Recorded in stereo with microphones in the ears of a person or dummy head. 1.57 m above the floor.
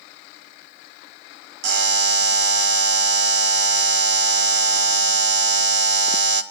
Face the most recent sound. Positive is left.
turn(degrees=-70)  # may be behind; listen again after turning